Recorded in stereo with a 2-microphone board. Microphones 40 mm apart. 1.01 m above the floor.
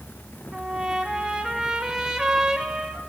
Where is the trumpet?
15° right (ahead or behind), 2 m.